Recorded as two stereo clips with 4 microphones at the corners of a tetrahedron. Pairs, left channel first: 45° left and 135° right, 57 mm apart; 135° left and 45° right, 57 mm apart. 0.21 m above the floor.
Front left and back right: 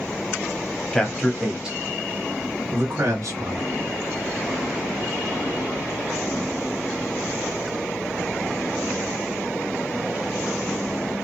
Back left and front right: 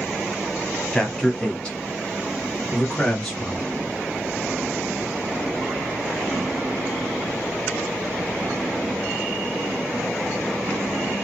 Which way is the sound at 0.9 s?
80° left.